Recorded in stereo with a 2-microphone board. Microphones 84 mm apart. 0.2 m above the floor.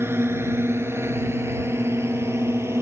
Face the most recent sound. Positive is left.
turn(degrees=-30)  # may be behind; listen again after turning